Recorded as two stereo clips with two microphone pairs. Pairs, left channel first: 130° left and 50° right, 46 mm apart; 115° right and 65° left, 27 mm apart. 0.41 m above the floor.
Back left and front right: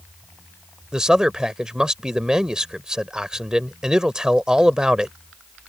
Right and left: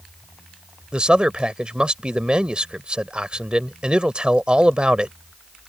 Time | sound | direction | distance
0.9 | a man speaking | 20° left | ?